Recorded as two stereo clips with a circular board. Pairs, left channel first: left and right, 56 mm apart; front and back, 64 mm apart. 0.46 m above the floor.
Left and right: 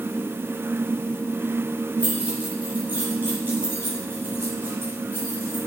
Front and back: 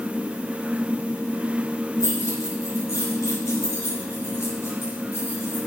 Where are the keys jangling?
25° right, 5.5 m; by 5.6 s 50° right, 5.5 m.